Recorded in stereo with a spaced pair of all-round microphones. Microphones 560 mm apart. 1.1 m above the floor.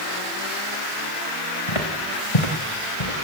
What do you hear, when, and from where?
1.7 s footsteps: 70° left (ahead or behind), 4 m; by 3.1 s 65° left (ahead or behind), 3.5 m